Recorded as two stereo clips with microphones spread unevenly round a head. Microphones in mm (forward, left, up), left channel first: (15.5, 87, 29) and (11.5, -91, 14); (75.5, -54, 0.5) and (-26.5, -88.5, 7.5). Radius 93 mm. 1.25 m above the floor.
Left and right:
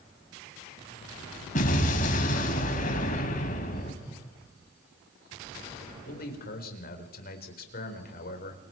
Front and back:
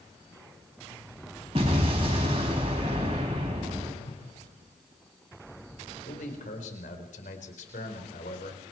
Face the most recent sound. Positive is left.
turn(degrees=50)